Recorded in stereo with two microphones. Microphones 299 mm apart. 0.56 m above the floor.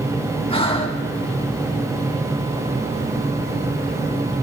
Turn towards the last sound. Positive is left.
turn(degrees=20)  # may be behind; listen again after turning